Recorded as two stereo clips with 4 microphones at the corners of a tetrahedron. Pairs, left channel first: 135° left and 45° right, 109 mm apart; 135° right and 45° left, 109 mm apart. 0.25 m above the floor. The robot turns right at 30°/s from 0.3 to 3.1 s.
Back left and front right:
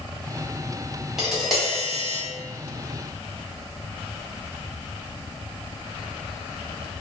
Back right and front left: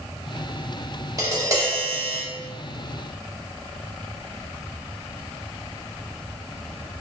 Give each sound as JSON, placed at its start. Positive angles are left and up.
{"t": 1.2, "sound": "tapping", "azimuth_deg": 35, "distance_m": 0.9}